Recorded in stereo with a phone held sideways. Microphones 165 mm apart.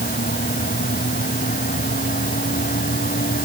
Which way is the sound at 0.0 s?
65° left (ahead or behind).